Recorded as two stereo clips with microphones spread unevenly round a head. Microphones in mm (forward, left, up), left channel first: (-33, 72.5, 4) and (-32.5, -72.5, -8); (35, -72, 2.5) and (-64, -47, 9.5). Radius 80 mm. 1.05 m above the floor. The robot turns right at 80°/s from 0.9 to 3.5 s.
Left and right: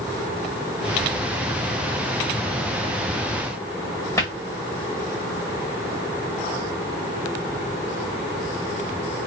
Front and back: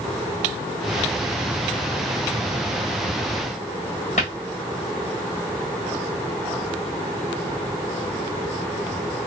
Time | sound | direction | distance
4.2 | a cupboard door | 20° left | 1.4 m